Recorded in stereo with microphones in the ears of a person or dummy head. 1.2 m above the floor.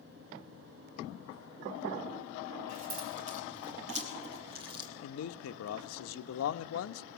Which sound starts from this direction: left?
A man speaking, at 5.0 s.